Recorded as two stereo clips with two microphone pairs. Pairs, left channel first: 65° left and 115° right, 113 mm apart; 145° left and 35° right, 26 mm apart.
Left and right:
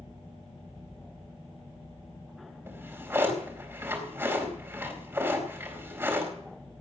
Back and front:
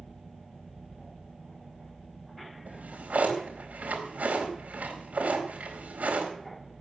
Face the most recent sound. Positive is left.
turn(degrees=-50)